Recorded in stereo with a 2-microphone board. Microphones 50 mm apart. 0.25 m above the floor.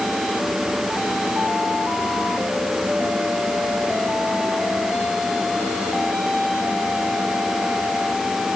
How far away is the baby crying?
I don't hear a baby crying.